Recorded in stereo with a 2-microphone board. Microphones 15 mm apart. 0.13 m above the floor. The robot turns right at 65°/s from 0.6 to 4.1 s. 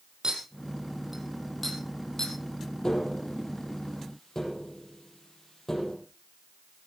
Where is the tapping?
55° left (ahead or behind), 5 m; by 6.0 s 35° left (ahead or behind), 5 m.